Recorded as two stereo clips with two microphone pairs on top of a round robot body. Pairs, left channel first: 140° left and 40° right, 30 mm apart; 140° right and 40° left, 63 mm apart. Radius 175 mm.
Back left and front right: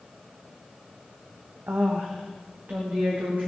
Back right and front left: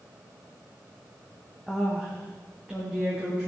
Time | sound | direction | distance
1.7 | a woman speaking | 50° right | 1.1 m